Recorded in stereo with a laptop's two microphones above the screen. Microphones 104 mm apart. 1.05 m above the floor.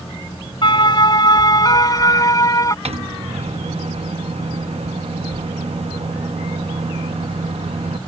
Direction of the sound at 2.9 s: 70° right (ahead or behind).